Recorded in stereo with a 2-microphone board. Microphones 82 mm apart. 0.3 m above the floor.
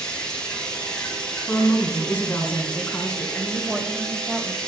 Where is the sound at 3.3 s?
10° right (ahead or behind), 1.5 m.